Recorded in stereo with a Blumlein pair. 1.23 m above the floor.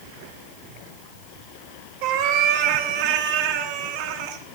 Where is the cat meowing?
45° right, 1.1 m.